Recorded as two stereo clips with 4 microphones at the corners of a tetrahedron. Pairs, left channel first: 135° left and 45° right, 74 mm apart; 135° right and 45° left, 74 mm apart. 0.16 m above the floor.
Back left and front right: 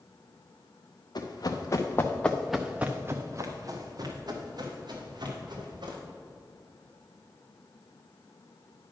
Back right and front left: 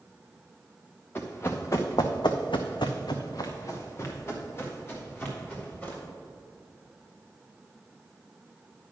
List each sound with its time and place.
1.1 s running footsteps: 165° left, 1.4 m; by 6.0 s 70° right, 3.5 m